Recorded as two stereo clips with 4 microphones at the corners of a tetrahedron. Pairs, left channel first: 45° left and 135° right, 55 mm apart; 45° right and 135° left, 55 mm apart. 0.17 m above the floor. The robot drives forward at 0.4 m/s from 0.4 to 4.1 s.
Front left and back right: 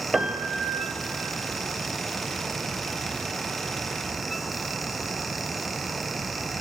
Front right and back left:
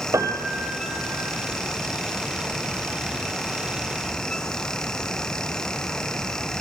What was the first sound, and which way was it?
A piano, 135° left.